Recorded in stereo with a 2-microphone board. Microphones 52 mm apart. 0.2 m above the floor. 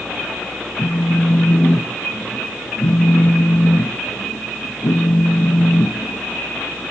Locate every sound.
0.8 s a phone buzzing: 80° left, 1.1 m